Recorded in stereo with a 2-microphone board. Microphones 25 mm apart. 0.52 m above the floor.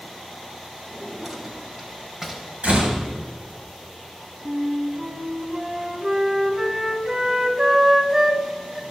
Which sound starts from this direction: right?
A door slam, at 2.6 s.